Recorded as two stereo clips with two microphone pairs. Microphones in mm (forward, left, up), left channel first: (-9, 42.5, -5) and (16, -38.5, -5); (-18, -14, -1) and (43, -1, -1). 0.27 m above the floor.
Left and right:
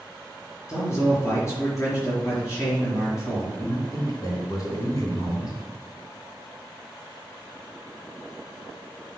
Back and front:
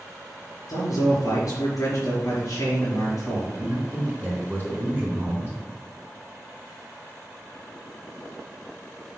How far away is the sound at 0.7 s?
About 4.5 m.